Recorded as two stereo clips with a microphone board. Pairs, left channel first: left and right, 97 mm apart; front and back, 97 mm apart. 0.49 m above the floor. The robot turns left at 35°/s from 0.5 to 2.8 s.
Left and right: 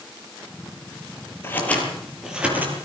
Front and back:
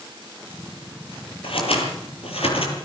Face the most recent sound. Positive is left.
turn(degrees=-25)